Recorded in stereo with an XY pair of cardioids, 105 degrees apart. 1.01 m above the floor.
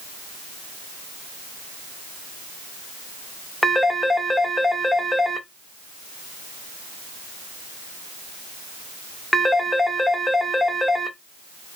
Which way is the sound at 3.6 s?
10° left.